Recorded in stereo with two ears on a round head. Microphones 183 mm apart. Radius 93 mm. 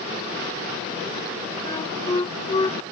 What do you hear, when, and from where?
1.6 s a flute: 25° left (ahead or behind)